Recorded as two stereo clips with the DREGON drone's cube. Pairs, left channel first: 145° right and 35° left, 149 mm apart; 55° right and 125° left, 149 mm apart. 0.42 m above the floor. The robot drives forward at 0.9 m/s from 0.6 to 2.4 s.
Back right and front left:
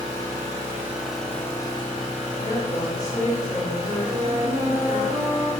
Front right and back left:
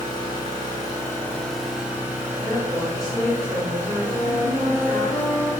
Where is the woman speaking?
145° right, 1.0 m.